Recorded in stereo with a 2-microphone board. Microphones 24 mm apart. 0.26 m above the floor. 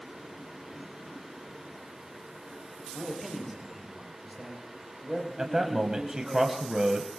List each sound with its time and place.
2.9 s a man speaking: 5° left (ahead or behind), 6.5 m
5.4 s a man speaking: 25° right (ahead or behind), 1.4 m